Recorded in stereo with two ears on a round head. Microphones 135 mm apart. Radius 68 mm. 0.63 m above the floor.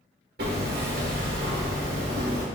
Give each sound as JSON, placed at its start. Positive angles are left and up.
{"t": 0.4, "sound": "hammering", "side_deg": -75, "distance_m": 1.3}